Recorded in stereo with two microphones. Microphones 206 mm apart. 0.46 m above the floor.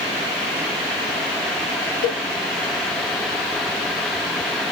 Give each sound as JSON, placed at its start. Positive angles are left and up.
{"t": 2.0, "sound": "a cowbell", "side_deg": 80, "distance_m": 1.6}